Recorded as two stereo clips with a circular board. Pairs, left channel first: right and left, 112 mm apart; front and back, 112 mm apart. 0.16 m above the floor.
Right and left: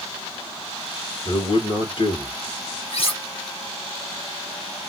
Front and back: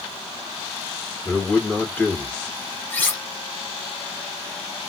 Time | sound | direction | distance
1.2 | a man speaking | 75° right | 2 m
2.9 | cutlery clinking | 75° right | 1.6 m